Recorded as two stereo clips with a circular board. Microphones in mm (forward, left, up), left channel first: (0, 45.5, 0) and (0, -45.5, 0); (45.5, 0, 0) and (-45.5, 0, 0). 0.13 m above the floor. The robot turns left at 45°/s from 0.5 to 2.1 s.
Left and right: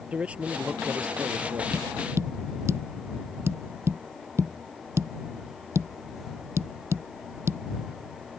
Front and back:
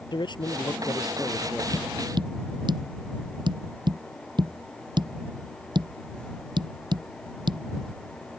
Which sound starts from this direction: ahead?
A man speaking, at 0.1 s.